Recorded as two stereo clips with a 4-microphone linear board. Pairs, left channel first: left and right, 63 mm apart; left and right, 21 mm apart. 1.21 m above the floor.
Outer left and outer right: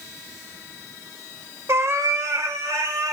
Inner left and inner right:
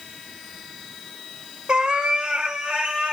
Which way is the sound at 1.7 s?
40° right (ahead or behind).